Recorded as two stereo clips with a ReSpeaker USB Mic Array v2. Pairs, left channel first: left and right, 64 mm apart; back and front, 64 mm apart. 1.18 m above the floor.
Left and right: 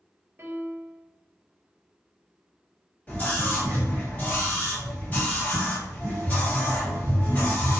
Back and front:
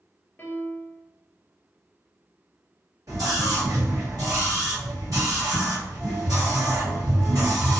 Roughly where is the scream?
Ahead left.